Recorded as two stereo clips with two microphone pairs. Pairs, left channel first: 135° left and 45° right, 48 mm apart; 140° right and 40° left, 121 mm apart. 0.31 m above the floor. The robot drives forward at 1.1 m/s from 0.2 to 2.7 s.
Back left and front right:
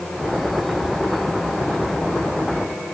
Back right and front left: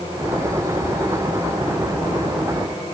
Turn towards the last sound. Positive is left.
No sound to turn to.